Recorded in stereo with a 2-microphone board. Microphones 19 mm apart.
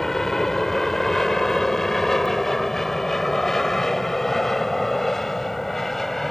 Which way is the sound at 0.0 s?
15° left (ahead or behind).